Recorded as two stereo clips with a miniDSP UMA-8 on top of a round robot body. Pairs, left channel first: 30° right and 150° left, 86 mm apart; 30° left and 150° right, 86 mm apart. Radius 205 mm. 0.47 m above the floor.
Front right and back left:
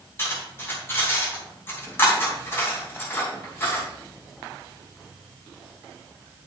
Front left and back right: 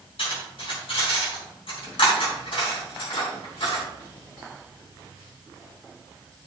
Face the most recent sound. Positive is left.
turn(degrees=35)